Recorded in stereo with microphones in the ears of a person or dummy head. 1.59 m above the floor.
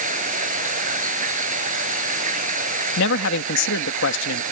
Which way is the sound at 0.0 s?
40° right (ahead or behind).